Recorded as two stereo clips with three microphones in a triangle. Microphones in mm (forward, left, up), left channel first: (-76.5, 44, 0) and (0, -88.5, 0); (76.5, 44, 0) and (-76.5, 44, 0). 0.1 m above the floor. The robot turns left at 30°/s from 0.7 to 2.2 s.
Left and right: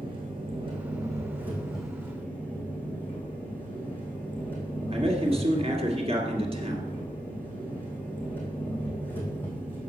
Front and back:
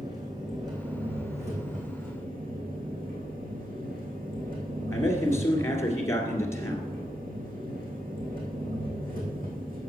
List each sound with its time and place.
0.0 s an engine running: 115° right, 2.5 m; by 9.9 s 160° right, 2.5 m
4.9 s a man speaking: 60° right, 2 m